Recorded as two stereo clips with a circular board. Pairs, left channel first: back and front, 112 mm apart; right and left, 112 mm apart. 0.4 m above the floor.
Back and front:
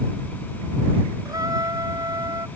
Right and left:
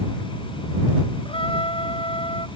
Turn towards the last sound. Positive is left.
turn(degrees=-55)